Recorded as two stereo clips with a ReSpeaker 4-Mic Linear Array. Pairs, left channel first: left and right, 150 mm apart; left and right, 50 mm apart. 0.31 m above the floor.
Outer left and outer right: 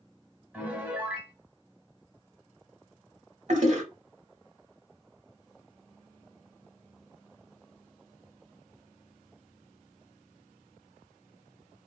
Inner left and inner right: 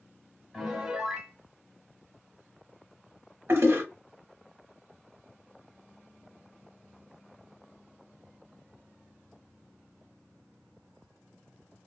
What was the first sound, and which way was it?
A piano, 10° right (ahead or behind).